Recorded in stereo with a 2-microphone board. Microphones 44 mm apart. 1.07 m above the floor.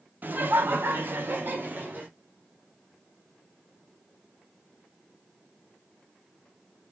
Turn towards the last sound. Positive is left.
turn(degrees=-45)  # may be behind; listen again after turning